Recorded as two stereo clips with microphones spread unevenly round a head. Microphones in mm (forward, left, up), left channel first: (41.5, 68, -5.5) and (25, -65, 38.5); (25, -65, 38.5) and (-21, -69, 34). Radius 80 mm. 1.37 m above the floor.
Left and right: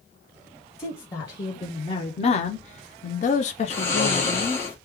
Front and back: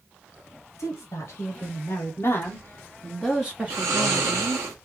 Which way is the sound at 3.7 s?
160° left.